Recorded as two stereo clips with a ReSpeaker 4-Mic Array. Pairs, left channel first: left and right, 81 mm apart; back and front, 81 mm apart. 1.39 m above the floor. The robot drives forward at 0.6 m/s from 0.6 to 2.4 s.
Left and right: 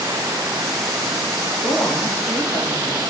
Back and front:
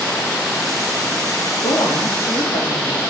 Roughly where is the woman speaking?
Behind.